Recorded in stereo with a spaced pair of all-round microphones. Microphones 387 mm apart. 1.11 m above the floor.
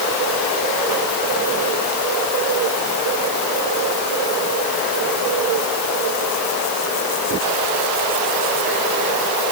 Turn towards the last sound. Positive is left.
No sound to turn to.